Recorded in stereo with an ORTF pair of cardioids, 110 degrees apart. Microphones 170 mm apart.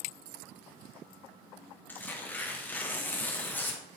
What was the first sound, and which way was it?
Tearing paper, 10° left.